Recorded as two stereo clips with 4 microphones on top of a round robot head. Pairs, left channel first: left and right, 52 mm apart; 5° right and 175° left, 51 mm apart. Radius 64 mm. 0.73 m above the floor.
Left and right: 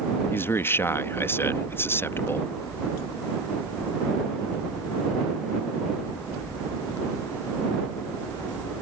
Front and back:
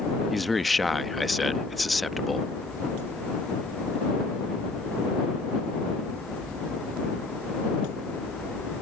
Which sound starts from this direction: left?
A man speaking, at 0.3 s.